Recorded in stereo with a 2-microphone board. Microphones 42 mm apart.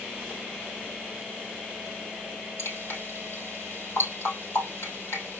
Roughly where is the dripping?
Left.